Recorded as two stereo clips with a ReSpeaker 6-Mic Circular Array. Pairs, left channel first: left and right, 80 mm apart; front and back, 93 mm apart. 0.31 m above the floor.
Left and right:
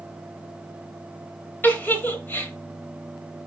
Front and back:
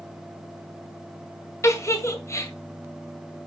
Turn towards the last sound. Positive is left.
turn(degrees=35)